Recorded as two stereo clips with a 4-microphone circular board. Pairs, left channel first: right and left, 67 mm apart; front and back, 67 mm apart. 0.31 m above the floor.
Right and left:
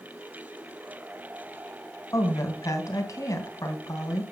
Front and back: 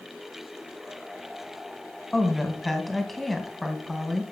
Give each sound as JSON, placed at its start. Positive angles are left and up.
{"t": 2.1, "sound": "a woman speaking", "azimuth_deg": -85, "distance_m": 2.5}